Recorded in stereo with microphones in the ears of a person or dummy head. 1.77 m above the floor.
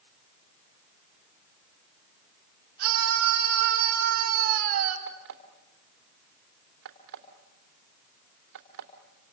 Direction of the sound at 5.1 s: 65° right (ahead or behind).